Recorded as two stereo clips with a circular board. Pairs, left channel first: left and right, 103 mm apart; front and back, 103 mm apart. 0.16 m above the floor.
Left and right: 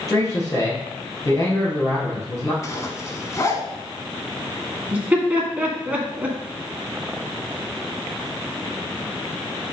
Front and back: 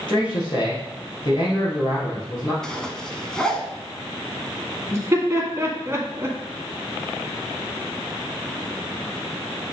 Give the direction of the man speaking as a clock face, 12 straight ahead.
11 o'clock.